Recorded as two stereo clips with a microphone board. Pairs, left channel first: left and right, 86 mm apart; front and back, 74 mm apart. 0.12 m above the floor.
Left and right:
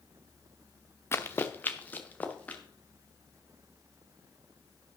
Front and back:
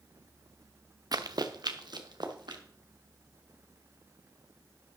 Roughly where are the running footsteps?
Behind left.